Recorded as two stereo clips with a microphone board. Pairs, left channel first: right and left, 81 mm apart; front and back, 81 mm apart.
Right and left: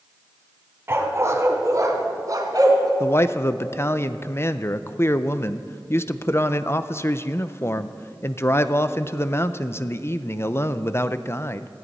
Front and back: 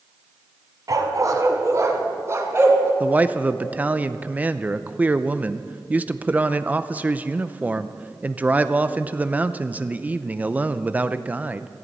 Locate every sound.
0.9 s a dog barking: 145° left, 1.9 m; by 2.9 s 120° left, 2.5 m
3.0 s a man speaking: 120° right, 0.5 m